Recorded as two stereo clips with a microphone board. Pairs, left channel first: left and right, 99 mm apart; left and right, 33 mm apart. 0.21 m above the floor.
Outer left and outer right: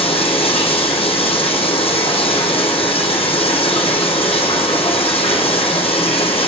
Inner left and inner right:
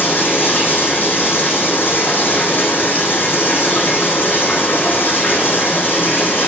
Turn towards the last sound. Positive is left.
turn(degrees=65)  # may be behind; listen again after turning